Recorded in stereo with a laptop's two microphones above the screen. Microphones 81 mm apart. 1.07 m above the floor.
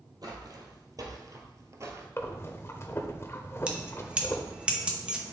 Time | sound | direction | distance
0.2 | footsteps | 50° right (ahead or behind) | 1.7 m
2.2 | breathing | 30° left (ahead or behind) | 0.8 m
3.7 | keys jangling | 10° right (ahead or behind) | 0.8 m